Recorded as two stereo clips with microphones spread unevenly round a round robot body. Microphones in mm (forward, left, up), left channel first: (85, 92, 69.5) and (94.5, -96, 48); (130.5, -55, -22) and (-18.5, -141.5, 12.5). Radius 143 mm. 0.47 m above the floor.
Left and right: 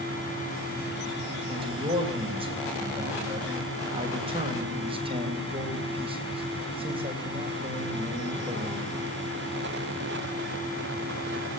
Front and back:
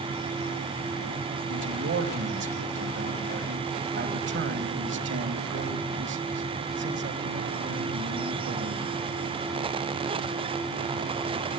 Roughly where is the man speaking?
Behind right.